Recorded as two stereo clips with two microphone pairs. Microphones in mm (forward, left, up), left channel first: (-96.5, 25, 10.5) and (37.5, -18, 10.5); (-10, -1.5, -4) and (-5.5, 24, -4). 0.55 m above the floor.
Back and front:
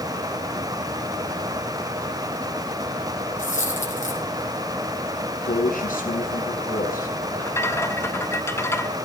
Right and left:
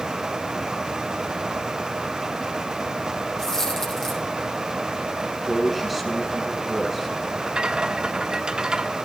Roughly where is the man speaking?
Behind.